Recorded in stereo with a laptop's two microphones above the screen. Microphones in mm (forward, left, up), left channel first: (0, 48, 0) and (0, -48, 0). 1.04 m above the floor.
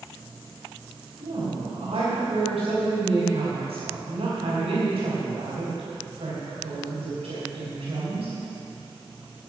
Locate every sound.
1.2 s a woman speaking: 85° right, 4 m